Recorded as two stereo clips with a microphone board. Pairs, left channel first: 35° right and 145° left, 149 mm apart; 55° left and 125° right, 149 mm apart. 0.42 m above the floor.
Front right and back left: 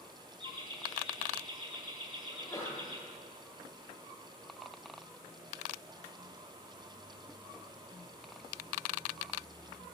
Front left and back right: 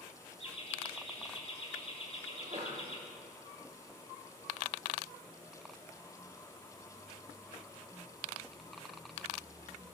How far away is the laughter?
About 2.5 m.